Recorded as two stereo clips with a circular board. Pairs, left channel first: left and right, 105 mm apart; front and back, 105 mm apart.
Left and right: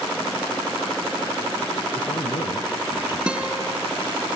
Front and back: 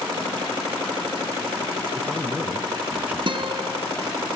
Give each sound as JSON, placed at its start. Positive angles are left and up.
{"t": 1.9, "sound": "a man speaking", "azimuth_deg": 105, "distance_m": 2.0}
{"t": 3.3, "sound": "a guitar", "azimuth_deg": -165, "distance_m": 1.7}